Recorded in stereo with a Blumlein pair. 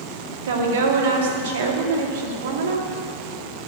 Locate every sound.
0.5 s a woman speaking: 60° right, 2 m